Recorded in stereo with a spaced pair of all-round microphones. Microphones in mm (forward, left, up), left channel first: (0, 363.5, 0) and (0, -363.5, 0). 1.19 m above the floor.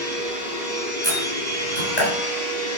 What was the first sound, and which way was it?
A machine running, 70° left (ahead or behind).